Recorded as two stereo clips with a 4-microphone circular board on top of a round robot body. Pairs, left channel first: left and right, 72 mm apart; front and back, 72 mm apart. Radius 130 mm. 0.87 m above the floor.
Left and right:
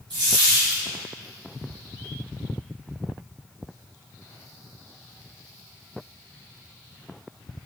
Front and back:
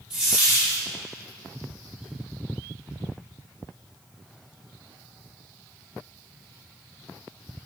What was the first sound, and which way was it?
A dropped coin, 100° right.